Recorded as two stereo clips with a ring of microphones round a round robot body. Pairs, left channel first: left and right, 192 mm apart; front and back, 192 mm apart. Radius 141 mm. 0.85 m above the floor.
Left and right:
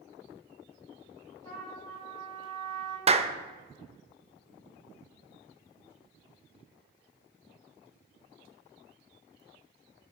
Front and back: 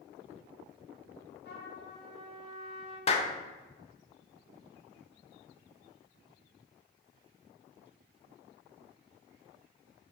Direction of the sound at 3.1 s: 45° right.